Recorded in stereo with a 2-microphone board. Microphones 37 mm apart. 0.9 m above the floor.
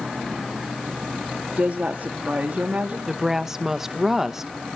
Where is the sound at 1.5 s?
45° right (ahead or behind), 1.9 m.